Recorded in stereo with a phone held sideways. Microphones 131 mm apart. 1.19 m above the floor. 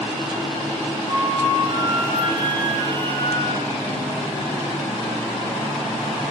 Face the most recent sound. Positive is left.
turn(degrees=-40)  # may be behind; listen again after turning